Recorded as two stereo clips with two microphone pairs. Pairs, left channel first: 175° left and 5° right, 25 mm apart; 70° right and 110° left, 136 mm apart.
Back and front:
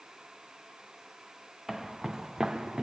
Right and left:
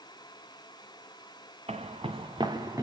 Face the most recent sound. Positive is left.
turn(degrees=45)